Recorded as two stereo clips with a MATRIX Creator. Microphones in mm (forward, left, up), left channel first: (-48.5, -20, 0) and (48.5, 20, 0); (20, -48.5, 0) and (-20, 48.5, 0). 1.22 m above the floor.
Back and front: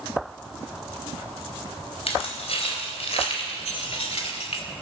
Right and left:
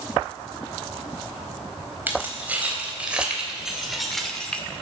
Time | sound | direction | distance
2.1 | keys jangling | 175° right | 4 m